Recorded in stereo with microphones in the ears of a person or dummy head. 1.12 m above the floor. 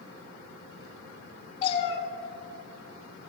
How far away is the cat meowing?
About 4 m.